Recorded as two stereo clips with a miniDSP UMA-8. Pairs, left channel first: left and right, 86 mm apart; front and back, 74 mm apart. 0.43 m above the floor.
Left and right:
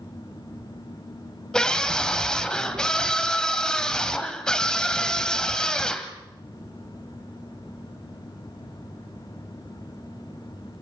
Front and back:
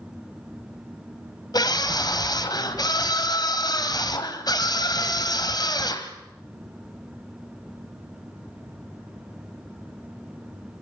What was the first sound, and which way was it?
A scream, 10° left.